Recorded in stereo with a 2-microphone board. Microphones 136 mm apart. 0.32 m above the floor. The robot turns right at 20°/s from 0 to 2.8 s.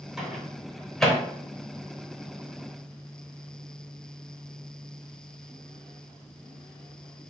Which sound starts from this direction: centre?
A microwave, at 0.2 s.